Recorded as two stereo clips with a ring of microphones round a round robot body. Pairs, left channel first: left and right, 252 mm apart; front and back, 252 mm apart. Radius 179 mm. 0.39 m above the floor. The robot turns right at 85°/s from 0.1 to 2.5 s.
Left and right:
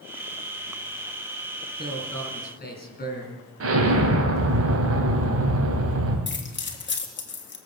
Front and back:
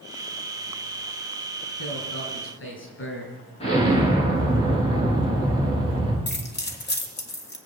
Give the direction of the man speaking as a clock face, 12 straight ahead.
1 o'clock.